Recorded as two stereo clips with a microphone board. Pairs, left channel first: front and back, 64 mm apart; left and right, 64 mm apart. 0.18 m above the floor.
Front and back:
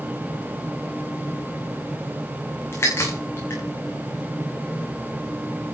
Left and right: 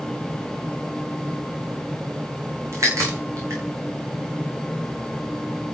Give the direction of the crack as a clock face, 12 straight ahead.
2 o'clock.